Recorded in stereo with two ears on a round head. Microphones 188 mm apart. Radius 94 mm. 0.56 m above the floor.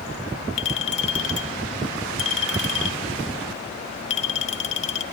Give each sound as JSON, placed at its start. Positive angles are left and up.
{"t": 0.6, "sound": "a clink", "side_deg": 35, "distance_m": 1.5}